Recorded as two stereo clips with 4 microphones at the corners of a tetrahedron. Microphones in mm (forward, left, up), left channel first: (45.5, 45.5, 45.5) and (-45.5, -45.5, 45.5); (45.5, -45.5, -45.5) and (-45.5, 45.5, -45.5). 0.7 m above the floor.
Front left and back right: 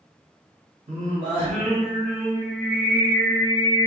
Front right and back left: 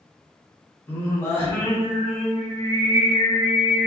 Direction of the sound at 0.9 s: 115° right.